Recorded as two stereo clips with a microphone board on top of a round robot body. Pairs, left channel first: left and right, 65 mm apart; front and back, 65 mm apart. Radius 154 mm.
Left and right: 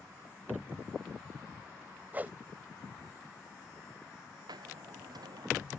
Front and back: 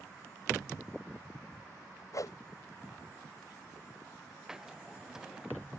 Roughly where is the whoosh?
Ahead right.